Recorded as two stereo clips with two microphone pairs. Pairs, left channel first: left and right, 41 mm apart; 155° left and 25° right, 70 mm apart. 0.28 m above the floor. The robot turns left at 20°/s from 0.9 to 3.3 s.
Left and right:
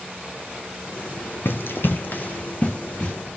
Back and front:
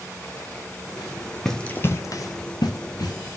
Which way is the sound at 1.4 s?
70° left.